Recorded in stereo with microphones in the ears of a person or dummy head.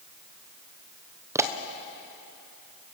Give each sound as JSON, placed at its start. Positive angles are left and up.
{"t": 1.4, "sound": "a pop", "side_deg": -20, "distance_m": 1.1}